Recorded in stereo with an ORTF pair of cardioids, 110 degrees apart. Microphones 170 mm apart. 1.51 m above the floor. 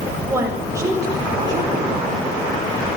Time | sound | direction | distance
0.3 | a woman speaking | 15° right | 7.5 m